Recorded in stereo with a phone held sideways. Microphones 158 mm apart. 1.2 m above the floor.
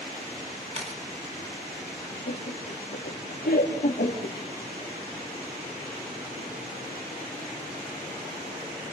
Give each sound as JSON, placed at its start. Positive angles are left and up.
{"t": 0.7, "sound": "a camera shutter", "side_deg": -40, "distance_m": 2.5}
{"t": 2.3, "sound": "laughter", "side_deg": 75, "distance_m": 1.4}